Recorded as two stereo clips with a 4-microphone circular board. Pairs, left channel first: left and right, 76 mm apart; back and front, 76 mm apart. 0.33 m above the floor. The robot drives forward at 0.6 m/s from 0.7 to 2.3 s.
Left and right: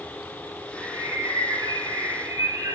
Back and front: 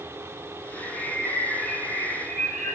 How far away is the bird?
About 3.5 m.